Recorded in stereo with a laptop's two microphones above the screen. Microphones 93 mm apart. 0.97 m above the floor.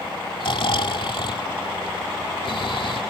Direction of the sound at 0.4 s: 70° left (ahead or behind).